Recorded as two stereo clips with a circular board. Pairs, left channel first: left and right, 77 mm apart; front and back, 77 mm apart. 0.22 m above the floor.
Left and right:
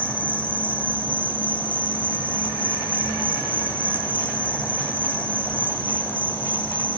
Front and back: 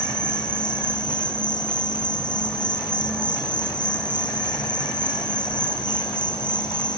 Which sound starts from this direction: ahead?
An insect, at 0.0 s.